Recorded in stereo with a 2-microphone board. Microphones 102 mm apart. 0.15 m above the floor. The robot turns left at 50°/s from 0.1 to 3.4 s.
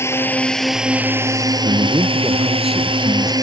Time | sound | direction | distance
0.0 | a drone | 30° left | ?
1.6 | a man speaking | 125° right | ?